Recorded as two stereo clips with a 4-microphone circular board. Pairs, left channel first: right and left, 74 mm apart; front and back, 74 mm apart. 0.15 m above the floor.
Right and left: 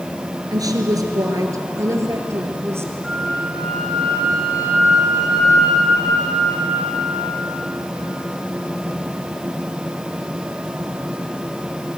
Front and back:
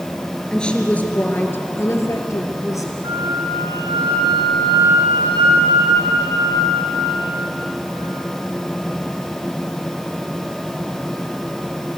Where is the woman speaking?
80° left, 2.5 m; by 2.9 s 35° left, 3.5 m.